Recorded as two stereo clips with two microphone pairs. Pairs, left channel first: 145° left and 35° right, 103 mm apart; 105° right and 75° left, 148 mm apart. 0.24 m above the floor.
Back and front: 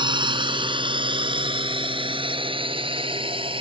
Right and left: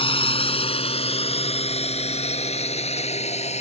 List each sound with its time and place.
0.0 s a drone: 60° right